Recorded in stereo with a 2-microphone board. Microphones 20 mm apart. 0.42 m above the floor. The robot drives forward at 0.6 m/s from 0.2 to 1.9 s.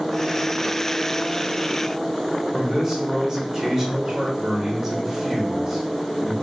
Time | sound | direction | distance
2.5 | a man speaking | 15° right (ahead or behind) | 1.2 m